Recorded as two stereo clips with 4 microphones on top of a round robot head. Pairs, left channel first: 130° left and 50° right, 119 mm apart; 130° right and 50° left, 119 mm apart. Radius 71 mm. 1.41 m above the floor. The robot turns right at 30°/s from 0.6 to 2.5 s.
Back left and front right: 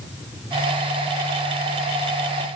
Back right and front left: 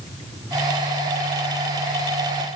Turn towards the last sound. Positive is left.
No sound to turn to.